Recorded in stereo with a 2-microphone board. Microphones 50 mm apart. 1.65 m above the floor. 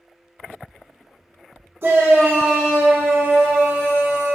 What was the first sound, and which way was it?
A shout, 45° right (ahead or behind).